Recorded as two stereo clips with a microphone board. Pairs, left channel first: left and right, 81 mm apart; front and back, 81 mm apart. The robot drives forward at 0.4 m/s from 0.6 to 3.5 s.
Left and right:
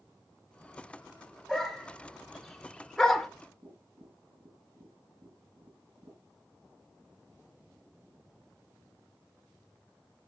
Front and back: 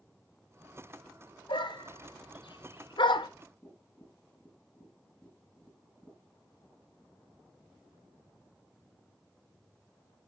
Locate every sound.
1.5 s a dog barking: straight ahead, 1.3 m; by 3.3 s 5° left, 0.6 m
3.6 s tapping: 105° right, 4 m